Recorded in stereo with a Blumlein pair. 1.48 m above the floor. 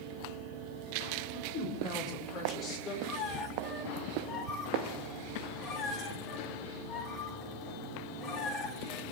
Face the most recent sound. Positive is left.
turn(degrees=30)